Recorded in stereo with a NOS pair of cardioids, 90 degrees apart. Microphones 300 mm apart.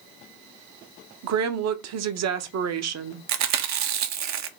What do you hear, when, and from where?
1.2 s a woman speaking: 60° right, 0.8 m
3.3 s chewing: 65° right, 0.7 m